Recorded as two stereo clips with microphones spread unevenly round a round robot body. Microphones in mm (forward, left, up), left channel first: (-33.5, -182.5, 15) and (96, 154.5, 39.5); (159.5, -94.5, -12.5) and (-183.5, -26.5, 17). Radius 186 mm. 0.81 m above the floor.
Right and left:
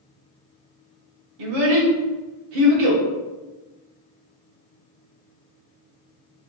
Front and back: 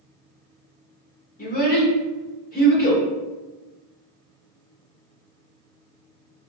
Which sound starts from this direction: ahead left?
A child speaking, at 1.4 s.